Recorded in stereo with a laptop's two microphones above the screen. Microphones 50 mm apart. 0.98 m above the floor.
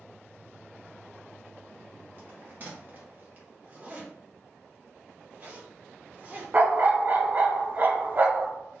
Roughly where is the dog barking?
Right.